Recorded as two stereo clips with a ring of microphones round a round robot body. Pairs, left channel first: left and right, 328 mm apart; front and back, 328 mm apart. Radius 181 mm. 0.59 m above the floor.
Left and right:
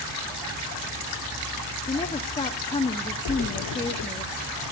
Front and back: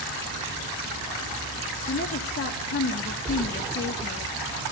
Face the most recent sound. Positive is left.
turn(degrees=90)